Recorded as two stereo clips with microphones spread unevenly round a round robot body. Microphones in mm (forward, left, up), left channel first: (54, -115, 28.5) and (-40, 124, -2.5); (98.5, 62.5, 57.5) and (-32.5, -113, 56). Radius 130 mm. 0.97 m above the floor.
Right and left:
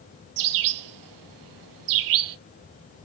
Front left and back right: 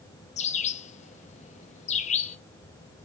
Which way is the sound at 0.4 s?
115° left.